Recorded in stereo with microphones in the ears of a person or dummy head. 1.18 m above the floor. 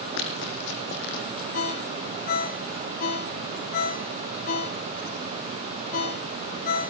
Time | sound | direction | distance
0.2 | running footsteps | 65° left (ahead or behind) | 3 m
1.5 | a ringtone | 40° left (ahead or behind) | 1.5 m